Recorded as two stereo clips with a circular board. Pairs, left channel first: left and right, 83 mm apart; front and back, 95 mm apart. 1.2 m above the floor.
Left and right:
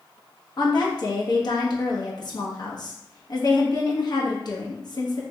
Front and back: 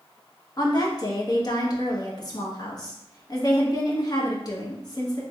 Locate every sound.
0.6 s a woman speaking: 50° left, 1.1 m